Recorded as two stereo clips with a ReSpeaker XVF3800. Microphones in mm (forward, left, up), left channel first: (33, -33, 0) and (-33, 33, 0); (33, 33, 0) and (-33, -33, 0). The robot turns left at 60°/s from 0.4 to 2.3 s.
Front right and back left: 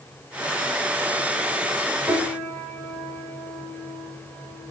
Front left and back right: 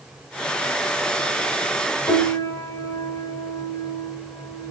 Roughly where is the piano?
Ahead left.